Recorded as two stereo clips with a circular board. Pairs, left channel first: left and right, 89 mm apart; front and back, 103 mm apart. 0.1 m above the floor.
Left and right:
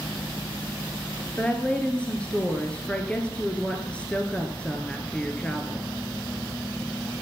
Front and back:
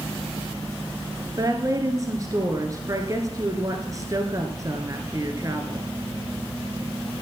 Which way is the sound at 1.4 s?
160° left.